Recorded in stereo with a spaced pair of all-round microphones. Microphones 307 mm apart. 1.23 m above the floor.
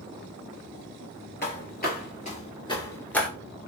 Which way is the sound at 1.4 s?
35° left (ahead or behind).